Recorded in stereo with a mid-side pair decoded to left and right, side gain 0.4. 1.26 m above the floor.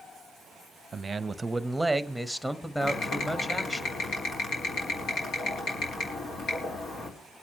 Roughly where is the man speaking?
Ahead right.